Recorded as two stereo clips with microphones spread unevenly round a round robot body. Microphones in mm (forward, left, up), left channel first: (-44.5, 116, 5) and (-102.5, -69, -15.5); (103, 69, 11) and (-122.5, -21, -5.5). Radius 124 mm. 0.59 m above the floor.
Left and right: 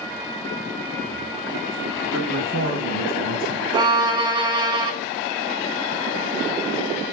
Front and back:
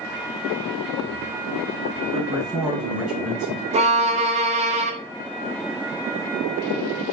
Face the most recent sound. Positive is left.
turn(degrees=-140)